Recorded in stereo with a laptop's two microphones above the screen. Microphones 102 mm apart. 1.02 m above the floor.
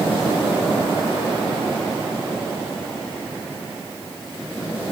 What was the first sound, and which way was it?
Only background noise.